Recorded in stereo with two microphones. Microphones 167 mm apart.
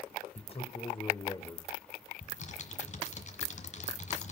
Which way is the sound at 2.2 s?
45° left (ahead or behind).